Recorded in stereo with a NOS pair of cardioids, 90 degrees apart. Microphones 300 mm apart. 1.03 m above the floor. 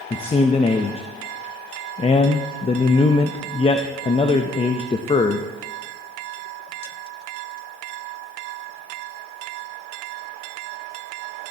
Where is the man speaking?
20° left, 0.7 m.